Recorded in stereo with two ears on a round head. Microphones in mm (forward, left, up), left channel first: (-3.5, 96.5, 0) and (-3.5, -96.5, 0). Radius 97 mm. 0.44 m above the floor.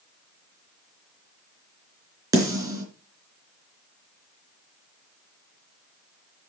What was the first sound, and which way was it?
A snare drum, 15° right (ahead or behind).